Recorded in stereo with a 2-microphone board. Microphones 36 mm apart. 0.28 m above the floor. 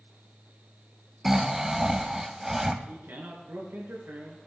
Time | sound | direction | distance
1.2 | snoring | 10° right (ahead or behind) | 1.0 m
2.9 | a man speaking | 75° right (ahead or behind) | 4.5 m